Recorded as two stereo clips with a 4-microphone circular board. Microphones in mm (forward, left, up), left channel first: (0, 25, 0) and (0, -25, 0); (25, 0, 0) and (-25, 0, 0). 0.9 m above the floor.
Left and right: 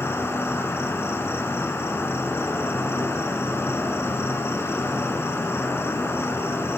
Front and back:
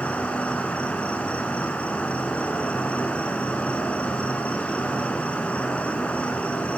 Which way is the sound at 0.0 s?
60° left.